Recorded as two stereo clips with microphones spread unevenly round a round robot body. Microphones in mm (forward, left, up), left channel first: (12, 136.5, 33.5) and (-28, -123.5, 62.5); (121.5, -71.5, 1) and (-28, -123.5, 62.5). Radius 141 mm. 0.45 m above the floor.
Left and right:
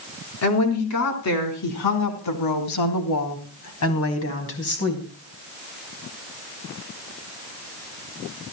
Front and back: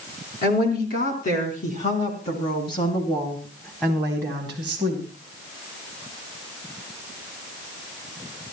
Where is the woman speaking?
50° left, 4.5 m; by 5.1 s 130° left, 3 m.